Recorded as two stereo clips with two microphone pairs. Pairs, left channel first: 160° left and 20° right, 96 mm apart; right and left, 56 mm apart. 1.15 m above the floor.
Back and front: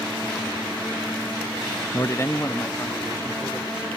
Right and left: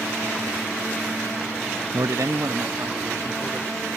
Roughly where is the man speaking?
Left.